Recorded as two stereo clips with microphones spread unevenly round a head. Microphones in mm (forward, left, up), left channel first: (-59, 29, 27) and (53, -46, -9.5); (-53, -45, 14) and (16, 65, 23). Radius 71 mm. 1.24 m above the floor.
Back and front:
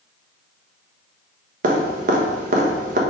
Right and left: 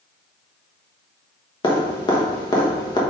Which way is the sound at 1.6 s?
60° right.